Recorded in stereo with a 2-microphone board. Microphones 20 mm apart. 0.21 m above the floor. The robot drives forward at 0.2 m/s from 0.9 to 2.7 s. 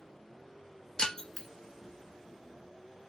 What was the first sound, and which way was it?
Breaking glass, 50° left (ahead or behind).